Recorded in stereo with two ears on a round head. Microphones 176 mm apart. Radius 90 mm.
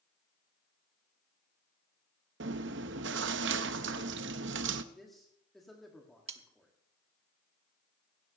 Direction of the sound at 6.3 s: 35° right (ahead or behind).